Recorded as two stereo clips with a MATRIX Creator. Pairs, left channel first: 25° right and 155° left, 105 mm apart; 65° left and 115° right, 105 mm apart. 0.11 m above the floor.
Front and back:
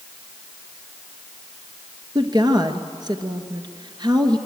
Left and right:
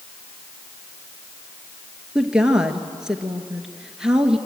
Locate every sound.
2.1 s a woman speaking: 170° left, 1.7 m